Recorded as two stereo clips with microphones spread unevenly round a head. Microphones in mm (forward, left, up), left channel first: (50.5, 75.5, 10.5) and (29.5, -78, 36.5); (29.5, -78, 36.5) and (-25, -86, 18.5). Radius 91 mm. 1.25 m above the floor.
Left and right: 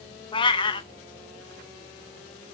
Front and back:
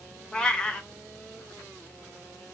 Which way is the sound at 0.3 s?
30° left.